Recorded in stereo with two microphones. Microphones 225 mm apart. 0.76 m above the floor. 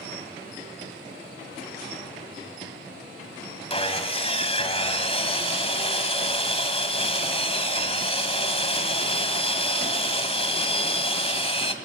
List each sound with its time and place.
3.7 s sawing: 25° left (ahead or behind), 1.6 m